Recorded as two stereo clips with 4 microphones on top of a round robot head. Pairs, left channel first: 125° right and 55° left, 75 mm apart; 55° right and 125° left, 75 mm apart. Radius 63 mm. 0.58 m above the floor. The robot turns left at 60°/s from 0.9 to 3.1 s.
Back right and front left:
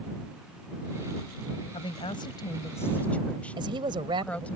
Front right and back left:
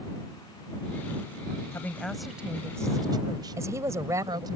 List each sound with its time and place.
1.7 s a woman speaking: 115° right; by 4.6 s 160° left
3.6 s a woman speaking: 75° left